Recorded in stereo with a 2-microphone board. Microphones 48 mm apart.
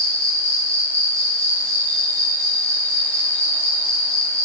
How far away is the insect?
About 6 m.